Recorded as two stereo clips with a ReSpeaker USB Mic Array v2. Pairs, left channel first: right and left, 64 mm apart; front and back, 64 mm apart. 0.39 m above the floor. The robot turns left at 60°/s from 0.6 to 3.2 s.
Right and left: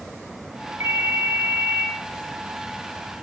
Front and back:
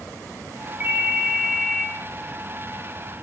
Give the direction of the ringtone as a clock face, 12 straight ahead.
8 o'clock.